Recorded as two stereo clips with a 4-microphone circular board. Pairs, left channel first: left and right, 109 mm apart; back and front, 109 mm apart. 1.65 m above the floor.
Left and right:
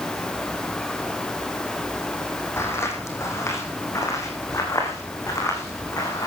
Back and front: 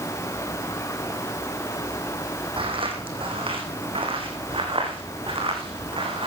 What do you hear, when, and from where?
2.6 s footsteps: 25° left, 4 m; by 6.3 s 30° left, 6 m